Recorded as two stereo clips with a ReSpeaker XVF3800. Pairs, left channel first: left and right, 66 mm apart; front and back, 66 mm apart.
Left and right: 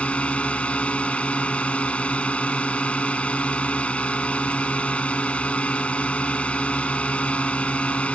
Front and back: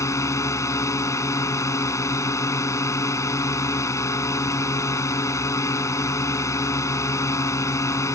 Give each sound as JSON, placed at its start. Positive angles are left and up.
{"t": 0.0, "sound": "a drone", "azimuth_deg": 25}